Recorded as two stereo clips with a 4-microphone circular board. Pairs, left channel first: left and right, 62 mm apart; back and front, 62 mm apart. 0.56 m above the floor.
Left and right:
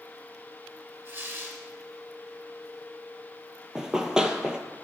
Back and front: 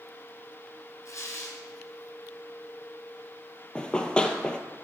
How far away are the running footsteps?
About 0.5 m.